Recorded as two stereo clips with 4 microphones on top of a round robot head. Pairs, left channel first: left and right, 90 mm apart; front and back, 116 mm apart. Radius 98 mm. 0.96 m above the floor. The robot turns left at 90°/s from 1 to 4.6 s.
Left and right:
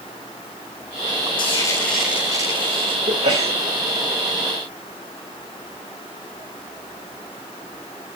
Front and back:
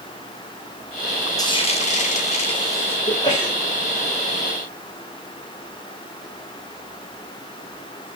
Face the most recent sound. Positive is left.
turn(degrees=175)